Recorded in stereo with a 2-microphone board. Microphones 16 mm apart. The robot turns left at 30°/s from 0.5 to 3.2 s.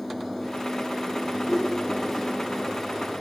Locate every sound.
1.4 s a whoosh: 20° left (ahead or behind), 2.5 m; by 2.4 s 45° left (ahead or behind), 2.5 m